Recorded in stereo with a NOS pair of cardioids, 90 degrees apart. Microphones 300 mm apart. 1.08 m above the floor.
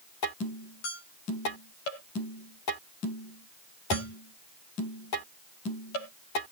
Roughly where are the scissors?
I don't hear scissors.